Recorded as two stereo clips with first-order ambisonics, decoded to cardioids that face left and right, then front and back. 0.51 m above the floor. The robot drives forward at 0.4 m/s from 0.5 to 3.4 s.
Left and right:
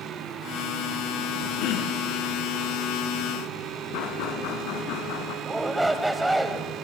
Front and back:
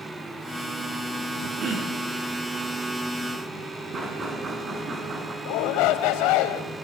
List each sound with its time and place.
1.6 s throat clearing: 120° left, 6 m
3.9 s knocking: 110° left, 4.5 m
5.5 s a shout: 5° right, 2.5 m